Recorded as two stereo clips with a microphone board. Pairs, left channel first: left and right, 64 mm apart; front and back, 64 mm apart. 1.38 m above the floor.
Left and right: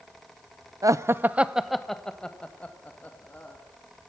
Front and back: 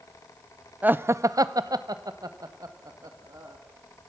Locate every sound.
0.8 s laughter: 115° right, 0.6 m; by 3.6 s 155° left, 2 m